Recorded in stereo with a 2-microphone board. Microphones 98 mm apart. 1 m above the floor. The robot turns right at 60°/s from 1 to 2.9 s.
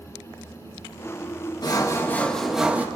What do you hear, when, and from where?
1.6 s sawing: 130° left, 1.6 m; by 2.9 s 160° right, 1.6 m